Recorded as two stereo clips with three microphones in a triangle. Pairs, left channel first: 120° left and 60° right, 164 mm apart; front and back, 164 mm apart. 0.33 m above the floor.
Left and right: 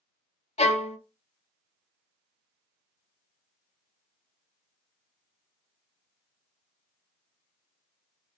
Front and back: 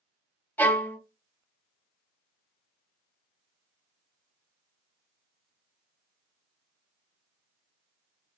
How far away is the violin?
About 0.6 m.